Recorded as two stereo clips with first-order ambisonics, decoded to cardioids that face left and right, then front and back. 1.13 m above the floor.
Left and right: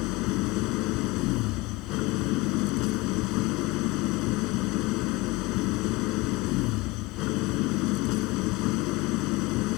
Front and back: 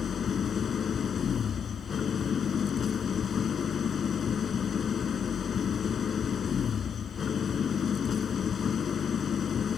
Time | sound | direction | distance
0.0 | an engine running | 65° left | ?